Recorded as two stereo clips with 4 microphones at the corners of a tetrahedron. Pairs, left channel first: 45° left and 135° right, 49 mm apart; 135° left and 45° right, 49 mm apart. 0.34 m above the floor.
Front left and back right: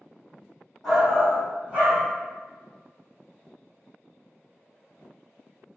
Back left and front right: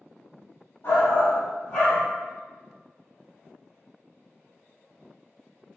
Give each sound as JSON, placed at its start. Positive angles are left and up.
{"t": 0.8, "sound": "a shout", "azimuth_deg": 140, "distance_m": 2.0}